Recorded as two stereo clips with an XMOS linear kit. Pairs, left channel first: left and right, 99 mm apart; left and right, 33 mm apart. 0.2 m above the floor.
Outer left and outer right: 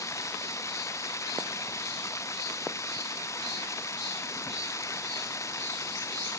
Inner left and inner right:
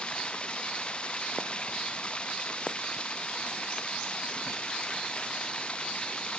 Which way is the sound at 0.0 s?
30° left (ahead or behind).